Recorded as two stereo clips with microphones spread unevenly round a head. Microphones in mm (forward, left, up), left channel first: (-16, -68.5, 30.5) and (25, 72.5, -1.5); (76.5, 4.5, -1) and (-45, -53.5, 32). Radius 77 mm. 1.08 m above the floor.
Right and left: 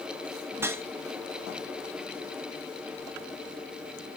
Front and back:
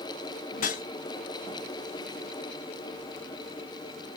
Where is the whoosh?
5° right, 0.7 m.